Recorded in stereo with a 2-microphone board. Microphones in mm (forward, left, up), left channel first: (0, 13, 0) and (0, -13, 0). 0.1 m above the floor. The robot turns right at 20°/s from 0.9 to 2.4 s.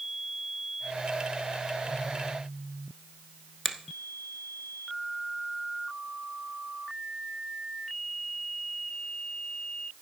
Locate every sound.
3.6 s a finger snap: 5° left (ahead or behind), 1.0 m